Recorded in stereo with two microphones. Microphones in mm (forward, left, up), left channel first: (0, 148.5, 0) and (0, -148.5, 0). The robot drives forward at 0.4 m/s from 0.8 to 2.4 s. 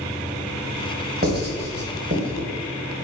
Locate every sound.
1.2 s writing: 30° right (ahead or behind), 1.2 m; by 2.5 s 45° right (ahead or behind), 0.9 m